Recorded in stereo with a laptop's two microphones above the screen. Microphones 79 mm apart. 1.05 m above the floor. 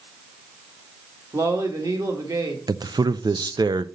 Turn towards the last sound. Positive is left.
turn(degrees=-60)  # may be behind; listen again after turning